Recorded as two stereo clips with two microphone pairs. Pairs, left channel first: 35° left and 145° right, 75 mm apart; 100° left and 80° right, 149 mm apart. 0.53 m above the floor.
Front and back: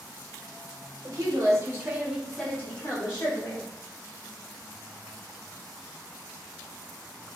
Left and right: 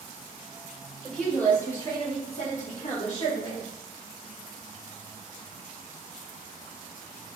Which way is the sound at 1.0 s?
175° right.